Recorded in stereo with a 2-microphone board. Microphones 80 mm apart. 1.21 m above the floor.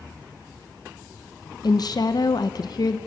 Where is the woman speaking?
55° left (ahead or behind), 0.9 m.